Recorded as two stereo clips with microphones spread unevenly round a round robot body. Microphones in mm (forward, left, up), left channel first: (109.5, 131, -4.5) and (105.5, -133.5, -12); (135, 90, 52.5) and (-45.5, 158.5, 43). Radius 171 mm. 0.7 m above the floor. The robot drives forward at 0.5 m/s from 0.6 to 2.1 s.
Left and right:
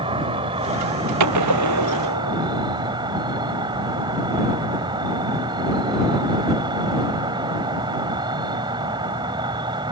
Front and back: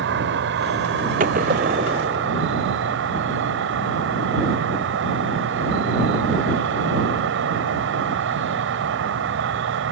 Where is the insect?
165° right; by 9.9 s 170° right.